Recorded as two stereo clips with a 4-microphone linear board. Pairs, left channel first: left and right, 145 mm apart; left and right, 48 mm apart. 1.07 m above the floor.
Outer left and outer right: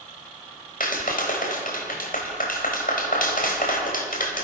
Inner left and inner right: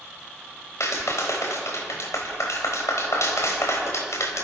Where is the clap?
75° left (ahead or behind), 4 m.